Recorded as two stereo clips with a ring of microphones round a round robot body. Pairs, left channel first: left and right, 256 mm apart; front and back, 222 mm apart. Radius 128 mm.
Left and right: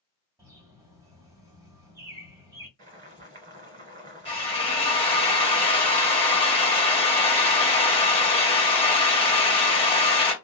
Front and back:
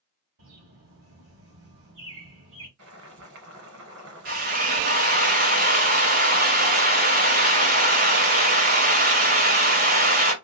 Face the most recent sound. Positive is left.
turn(degrees=150)